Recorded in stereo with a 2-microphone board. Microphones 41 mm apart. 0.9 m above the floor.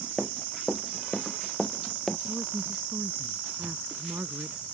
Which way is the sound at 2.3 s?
75° right (ahead or behind).